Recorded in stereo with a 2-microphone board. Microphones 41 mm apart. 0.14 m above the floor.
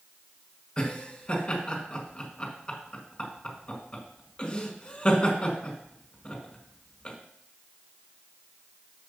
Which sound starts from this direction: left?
Laughter, at 0.8 s.